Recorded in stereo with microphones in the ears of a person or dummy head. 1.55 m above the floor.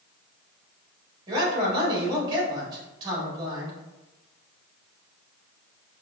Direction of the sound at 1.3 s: 25° right (ahead or behind).